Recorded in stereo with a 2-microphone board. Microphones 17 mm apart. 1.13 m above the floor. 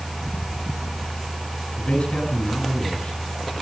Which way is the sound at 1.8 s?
80° left.